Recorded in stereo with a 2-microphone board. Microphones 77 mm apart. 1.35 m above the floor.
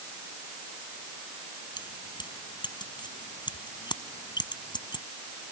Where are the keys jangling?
75° left (ahead or behind).